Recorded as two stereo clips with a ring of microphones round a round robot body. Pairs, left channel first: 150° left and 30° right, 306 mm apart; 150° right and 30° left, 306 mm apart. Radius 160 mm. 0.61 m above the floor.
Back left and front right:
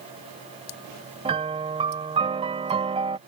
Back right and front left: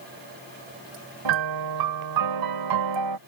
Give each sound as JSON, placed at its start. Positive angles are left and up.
{"t": 1.2, "sound": "a piano", "azimuth_deg": 45}